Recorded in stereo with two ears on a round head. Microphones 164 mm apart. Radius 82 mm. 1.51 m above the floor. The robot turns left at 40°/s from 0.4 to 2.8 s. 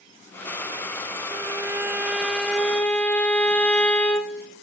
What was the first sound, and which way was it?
A violin, 20° right (ahead or behind).